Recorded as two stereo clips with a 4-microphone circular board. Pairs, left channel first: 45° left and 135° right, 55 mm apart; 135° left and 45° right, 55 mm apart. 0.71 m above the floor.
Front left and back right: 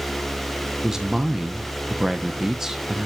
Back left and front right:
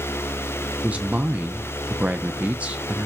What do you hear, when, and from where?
0.8 s a man speaking: 65° right, 0.6 m